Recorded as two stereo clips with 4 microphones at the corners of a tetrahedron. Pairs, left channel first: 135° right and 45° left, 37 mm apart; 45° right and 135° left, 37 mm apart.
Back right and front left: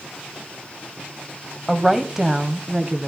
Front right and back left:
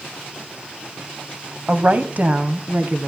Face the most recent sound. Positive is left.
turn(degrees=115)